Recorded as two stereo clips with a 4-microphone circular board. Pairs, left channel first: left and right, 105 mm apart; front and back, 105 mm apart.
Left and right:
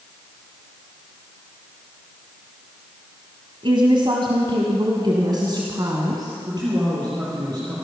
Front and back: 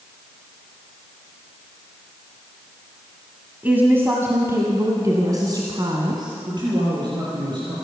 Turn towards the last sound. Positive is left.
turn(degrees=-135)